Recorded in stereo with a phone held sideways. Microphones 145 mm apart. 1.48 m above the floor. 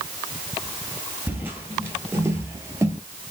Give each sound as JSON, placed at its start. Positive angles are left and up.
{"t": 1.3, "sound": "footsteps", "side_deg": -15, "distance_m": 1.7}